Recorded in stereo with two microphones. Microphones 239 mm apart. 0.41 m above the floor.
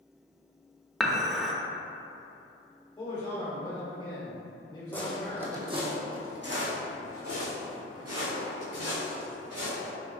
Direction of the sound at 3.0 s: 20° left (ahead or behind).